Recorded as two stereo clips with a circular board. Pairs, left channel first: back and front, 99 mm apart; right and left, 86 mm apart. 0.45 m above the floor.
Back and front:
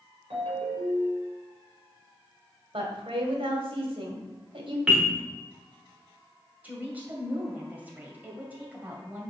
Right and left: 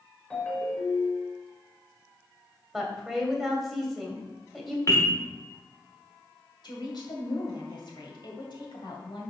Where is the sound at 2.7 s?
Straight ahead, 1.8 m.